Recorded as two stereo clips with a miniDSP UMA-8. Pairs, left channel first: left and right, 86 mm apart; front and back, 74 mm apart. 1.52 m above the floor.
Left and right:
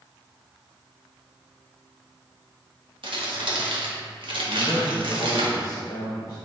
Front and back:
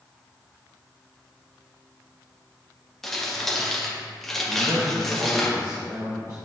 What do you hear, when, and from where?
3.0 s crumpling: 85° right, 1.4 m
4.5 s a man speaking: 140° left, 1.5 m